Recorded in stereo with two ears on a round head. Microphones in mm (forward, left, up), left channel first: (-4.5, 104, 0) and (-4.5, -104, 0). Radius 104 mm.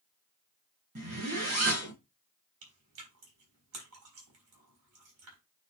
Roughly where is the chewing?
Right.